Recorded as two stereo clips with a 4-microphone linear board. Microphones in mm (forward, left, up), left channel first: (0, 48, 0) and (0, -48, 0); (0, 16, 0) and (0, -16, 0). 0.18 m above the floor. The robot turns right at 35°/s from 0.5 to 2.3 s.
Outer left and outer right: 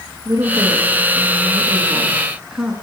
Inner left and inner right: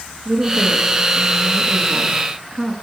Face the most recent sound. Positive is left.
turn(degrees=-10)